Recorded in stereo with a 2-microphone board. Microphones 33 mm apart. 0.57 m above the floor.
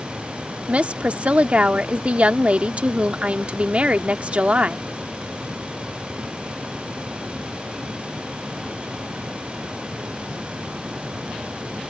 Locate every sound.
0.7 s a woman speaking: 45° right (ahead or behind)